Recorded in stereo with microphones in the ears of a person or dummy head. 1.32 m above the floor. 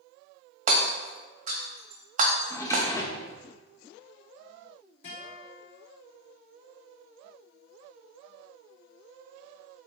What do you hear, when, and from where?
0.7 s hammering: 40° right (ahead or behind), 1.3 m
2.5 s a drawer: 15° left (ahead or behind), 0.9 m
5.0 s a guitar: 50° left (ahead or behind), 3.5 m